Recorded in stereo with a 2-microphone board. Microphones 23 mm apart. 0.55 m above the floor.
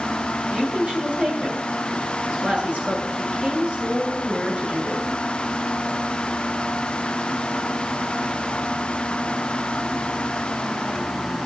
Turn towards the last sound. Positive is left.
turn(degrees=-65)  # may be behind; listen again after turning